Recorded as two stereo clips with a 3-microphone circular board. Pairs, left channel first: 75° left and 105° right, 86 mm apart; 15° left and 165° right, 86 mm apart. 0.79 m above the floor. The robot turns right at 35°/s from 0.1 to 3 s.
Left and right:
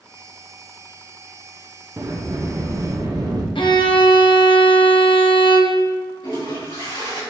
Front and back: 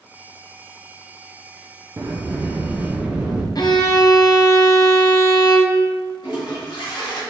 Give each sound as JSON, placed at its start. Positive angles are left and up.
{"t": 2.0, "sound": "a sliding door", "azimuth_deg": -135, "distance_m": 0.5}
{"t": 3.5, "sound": "a violin", "azimuth_deg": 55, "distance_m": 0.5}
{"t": 6.2, "sound": "a toilet flushing", "azimuth_deg": 45, "distance_m": 1.8}